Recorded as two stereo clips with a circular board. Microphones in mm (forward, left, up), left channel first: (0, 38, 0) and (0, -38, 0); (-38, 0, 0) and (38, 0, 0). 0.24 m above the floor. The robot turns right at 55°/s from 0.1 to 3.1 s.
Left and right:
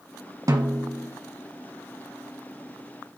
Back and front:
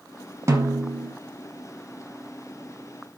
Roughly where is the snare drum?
Ahead right.